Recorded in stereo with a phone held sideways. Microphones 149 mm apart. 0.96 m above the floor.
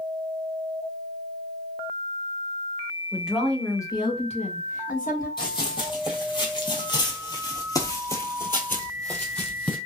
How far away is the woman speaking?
About 1.4 m.